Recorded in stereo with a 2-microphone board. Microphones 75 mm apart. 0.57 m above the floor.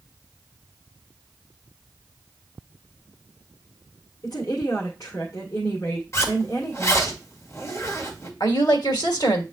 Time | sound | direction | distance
4.2 | a woman speaking | 50° left (ahead or behind) | 1.8 m
6.1 | a zipper | 40° left (ahead or behind) | 1.9 m
8.4 | a woman speaking | 65° left (ahead or behind) | 1.8 m